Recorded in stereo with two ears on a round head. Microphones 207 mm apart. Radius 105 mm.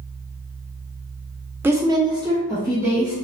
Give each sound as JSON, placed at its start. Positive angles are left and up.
{"t": 1.6, "sound": "a woman speaking", "side_deg": -10, "distance_m": 0.6}